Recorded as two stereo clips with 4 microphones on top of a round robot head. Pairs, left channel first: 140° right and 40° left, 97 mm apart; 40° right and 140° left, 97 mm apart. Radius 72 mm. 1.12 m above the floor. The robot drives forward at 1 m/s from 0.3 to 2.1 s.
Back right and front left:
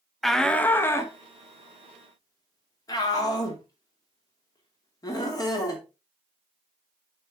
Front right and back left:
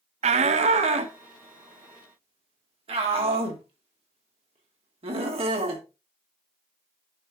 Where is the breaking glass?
I don't hear breaking glass.